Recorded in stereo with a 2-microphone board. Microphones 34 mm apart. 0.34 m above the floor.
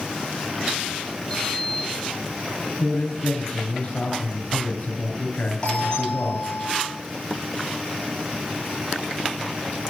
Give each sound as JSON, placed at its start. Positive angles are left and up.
{"t": 1.3, "sound": "a sliding door", "side_deg": 15, "distance_m": 6.5}
{"t": 2.8, "sound": "a man speaking", "side_deg": 50, "distance_m": 6.0}
{"t": 5.6, "sound": "a doorbell", "side_deg": 30, "distance_m": 9.5}